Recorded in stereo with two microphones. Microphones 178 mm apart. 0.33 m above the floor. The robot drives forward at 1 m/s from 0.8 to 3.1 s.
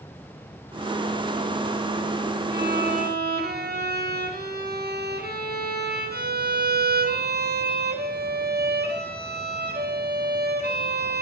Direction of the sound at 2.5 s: 70° right (ahead or behind).